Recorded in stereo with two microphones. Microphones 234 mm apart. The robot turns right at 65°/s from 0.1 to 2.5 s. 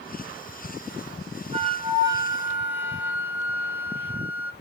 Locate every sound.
1.5 s a flute: 25° right (ahead or behind), 0.5 m; by 4.5 s 5° right (ahead or behind), 0.5 m